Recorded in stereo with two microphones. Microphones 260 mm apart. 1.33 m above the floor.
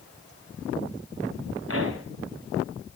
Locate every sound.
1.7 s a pop: 55° right (ahead or behind), 3 m